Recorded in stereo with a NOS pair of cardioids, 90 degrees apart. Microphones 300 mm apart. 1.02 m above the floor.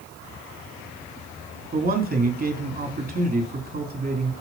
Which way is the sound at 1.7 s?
30° right.